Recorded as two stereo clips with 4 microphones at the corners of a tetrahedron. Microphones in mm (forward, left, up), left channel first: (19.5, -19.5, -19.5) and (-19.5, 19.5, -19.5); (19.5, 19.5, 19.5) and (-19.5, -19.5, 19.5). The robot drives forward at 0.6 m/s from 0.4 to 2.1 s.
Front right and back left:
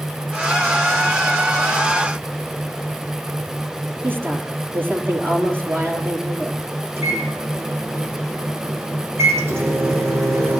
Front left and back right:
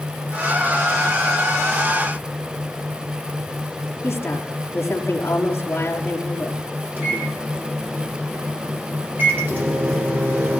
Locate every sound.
4.0 s a woman speaking: 90° left, 5 m
7.0 s a microwave: 175° left, 9 m